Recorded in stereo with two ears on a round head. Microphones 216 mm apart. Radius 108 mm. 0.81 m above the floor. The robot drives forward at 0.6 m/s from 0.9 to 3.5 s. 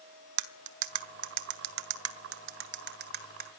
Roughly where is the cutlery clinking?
Right.